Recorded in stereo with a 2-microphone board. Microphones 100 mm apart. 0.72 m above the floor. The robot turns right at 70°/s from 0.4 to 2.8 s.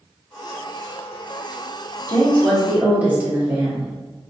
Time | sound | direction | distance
2.1 | a woman speaking | 150° left | 1.7 m